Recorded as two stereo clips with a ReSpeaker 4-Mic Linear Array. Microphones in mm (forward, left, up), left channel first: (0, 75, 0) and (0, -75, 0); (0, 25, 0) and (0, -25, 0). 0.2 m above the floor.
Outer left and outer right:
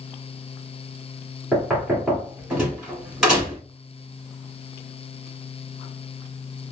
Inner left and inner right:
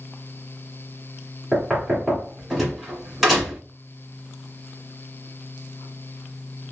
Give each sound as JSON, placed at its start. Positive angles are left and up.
{"t": 1.5, "sound": "knocking", "side_deg": -5, "distance_m": 1.6}